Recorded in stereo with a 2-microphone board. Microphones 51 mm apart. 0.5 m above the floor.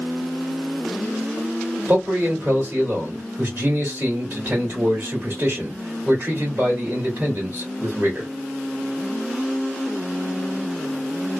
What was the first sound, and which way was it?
A man speaking, 40° right (ahead or behind).